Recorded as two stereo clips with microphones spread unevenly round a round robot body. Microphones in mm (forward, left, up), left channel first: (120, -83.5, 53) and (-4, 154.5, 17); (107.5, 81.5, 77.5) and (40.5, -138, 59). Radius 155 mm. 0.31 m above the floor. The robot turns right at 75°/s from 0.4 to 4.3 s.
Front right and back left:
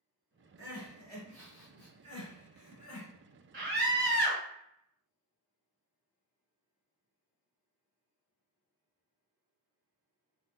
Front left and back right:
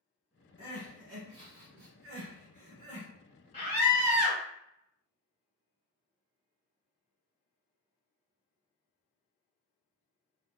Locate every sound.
0.6 s crying: 145° left, 1.7 m; by 3.1 s 30° right, 1.7 m
3.5 s a scream: 140° left, 1.3 m; by 4.4 s 165° right, 1.3 m